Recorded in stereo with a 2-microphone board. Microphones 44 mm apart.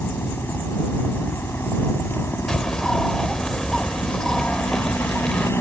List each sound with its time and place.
0.0 s a helicopter: 60° left (ahead or behind); by 5.6 s 70° left (ahead or behind)
2.5 s a bird: 15° left (ahead or behind)